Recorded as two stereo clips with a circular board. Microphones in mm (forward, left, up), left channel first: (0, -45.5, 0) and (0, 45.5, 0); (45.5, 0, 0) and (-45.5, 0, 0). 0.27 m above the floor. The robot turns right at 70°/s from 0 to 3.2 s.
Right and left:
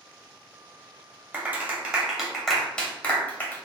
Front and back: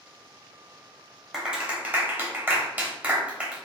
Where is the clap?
105° left, 0.7 m; by 3.6 s 125° right, 0.7 m.